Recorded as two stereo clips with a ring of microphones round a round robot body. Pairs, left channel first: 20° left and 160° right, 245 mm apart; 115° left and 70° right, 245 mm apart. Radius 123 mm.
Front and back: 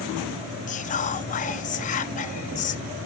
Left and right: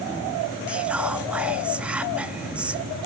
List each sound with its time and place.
0.7 s whispering: 15° left, 0.6 m